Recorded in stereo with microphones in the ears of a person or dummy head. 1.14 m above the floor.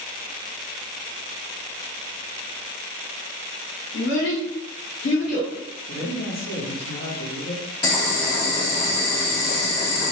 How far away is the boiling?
About 1.0 m.